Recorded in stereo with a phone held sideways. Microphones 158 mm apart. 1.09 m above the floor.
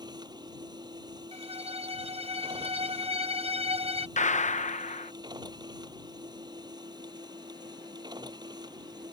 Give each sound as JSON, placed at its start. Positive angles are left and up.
{"t": 0.0, "sound": "a machine running", "side_deg": -25}
{"t": 1.3, "sound": "a violin", "side_deg": -40}
{"t": 4.2, "sound": "a gunshot", "side_deg": 50}